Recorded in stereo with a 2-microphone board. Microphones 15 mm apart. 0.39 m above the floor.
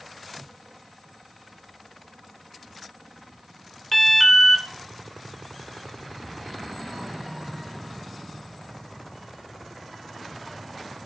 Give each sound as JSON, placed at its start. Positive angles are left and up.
{"t": 3.9, "sound": "an alarm", "side_deg": 15, "distance_m": 0.6}